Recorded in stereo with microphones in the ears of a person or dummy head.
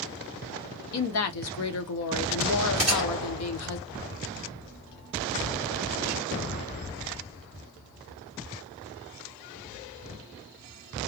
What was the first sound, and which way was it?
A woman speaking, 65° left (ahead or behind).